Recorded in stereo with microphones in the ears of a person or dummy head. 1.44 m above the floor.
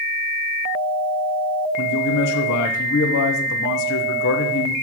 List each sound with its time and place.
1.8 s a man speaking: 60° left (ahead or behind), 0.9 m